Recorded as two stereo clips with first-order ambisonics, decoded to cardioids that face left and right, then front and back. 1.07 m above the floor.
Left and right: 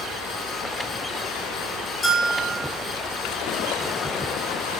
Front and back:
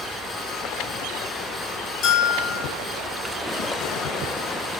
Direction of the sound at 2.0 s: 20° left.